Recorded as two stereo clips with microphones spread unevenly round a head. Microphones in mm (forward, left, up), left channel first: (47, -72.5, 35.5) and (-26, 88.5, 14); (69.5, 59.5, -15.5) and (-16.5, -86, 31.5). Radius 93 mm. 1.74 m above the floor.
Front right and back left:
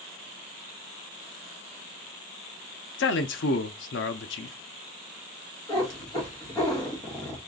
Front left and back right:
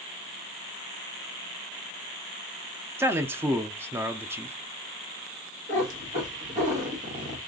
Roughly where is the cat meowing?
Behind right.